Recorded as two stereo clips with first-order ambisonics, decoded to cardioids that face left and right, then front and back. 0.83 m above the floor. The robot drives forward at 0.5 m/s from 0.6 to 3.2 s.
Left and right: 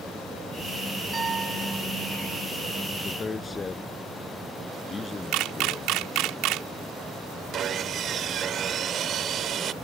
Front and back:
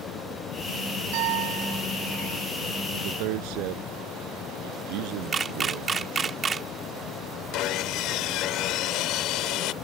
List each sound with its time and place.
1.1 s a piano: 165° right
2.9 s a man speaking: 165° left
5.3 s a camera shutter: 115° right
7.5 s sawing: 35° right